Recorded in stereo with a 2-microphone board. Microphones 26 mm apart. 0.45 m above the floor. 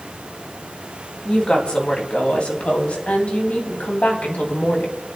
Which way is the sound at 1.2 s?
40° left (ahead or behind).